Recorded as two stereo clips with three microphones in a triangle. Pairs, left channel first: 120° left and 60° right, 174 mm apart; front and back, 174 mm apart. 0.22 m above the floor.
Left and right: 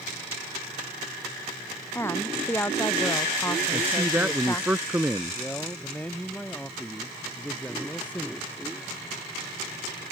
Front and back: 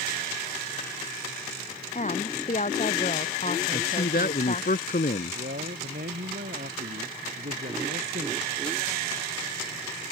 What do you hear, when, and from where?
1.9 s a woman speaking: 45° left
3.7 s a man speaking: 20° left
5.3 s a man speaking: 160° right